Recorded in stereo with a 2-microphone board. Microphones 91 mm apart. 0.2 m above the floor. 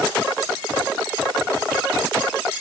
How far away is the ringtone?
No ringtone in this recording.